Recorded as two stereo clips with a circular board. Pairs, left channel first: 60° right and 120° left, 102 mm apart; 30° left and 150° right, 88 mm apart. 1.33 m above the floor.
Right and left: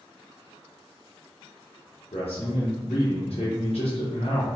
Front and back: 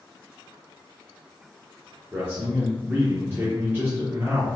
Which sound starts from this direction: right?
A man speaking, at 2.1 s.